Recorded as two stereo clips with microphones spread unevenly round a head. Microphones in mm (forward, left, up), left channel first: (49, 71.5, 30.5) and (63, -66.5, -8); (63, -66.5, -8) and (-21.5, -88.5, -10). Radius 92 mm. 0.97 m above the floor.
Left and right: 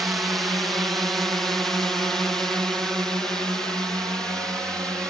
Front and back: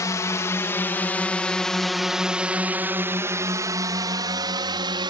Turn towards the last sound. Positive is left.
turn(degrees=-170)